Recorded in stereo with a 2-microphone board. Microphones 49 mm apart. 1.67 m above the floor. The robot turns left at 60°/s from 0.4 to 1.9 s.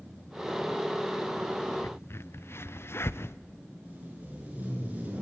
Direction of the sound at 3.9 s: 30° right (ahead or behind).